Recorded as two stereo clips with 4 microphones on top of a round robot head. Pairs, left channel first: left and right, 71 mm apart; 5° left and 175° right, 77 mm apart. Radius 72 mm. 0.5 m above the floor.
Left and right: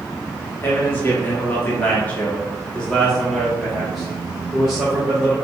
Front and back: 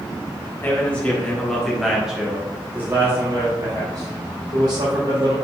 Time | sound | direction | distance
0.6 | a man speaking | 50° left | 1.3 m